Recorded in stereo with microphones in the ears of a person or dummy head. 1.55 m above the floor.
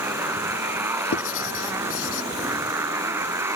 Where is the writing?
80° left.